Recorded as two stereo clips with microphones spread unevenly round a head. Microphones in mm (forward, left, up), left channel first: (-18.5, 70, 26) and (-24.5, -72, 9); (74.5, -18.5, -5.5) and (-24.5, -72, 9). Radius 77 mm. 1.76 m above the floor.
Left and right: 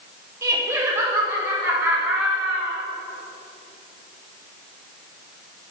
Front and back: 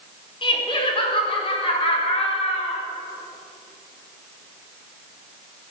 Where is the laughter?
15° right, 4.5 m; by 2.8 s 5° right, 5.5 m.